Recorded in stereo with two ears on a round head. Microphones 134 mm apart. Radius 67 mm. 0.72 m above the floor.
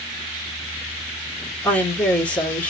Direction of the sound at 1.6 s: 10° left (ahead or behind).